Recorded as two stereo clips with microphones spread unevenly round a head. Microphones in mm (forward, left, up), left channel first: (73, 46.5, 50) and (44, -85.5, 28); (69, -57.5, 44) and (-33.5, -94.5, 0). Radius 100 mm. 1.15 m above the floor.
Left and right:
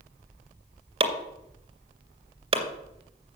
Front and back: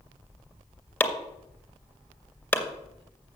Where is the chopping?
55° right, 2 m.